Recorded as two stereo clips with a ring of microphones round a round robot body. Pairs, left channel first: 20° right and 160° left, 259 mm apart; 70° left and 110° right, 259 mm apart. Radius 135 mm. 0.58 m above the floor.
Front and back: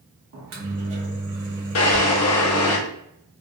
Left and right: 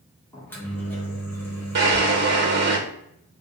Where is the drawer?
60° right, 0.9 m.